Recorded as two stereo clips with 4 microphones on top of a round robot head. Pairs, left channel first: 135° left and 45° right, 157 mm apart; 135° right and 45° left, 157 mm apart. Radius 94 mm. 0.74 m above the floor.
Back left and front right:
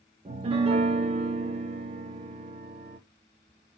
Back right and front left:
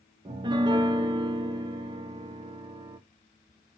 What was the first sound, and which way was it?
A piano, 5° right.